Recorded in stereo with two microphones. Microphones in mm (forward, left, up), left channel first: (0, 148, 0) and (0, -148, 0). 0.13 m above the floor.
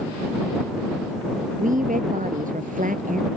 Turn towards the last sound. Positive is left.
turn(degrees=-25)  # may be behind; listen again after turning